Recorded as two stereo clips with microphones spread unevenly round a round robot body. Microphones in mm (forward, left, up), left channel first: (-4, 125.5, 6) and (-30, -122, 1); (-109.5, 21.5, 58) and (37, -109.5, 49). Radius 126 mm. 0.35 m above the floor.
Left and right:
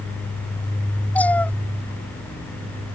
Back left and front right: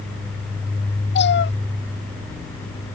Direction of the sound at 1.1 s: 170° left.